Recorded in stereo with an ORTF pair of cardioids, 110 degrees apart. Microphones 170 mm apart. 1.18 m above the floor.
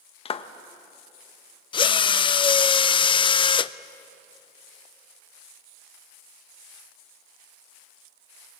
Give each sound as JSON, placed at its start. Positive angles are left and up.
{"t": 0.2, "sound": "a clap", "azimuth_deg": 35, "distance_m": 1.2}
{"t": 1.7, "sound": "a drill", "azimuth_deg": 30, "distance_m": 0.5}